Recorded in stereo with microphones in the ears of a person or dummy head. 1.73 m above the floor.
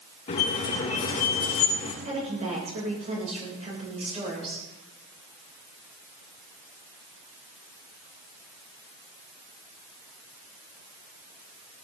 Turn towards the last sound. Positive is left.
turn(degrees=-30)  # may be behind; listen again after turning